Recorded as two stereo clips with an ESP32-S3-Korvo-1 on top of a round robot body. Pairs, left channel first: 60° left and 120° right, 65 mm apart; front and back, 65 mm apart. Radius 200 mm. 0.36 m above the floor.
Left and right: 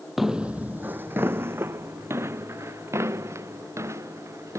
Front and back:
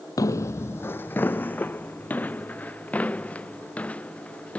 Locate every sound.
0.2 s footsteps: 30° right; by 4.6 s 70° right